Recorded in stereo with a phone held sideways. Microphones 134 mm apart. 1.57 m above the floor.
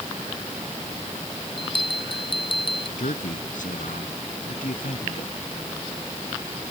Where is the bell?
40° left (ahead or behind).